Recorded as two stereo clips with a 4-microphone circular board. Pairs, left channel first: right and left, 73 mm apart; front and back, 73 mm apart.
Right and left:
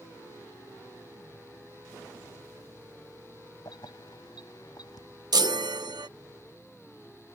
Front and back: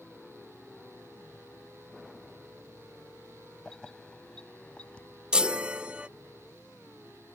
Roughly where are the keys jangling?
Right.